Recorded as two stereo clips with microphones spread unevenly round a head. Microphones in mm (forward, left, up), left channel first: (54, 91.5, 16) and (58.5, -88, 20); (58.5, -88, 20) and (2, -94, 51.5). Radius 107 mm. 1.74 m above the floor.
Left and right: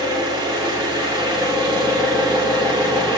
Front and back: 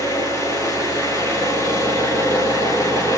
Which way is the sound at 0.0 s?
170° right.